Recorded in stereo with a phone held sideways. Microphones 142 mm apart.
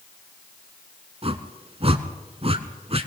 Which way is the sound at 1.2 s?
45° right (ahead or behind).